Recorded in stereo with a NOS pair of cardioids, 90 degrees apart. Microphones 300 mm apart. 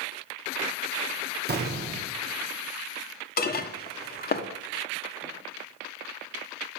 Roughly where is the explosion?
Ahead right.